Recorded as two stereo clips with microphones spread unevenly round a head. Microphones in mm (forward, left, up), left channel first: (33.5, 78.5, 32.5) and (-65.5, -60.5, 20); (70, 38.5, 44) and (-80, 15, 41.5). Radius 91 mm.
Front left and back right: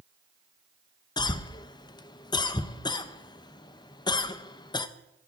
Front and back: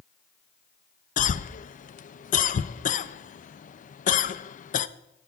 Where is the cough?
10° right, 0.5 m.